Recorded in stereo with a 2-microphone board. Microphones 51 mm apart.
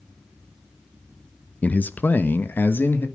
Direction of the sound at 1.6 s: 30° left (ahead or behind).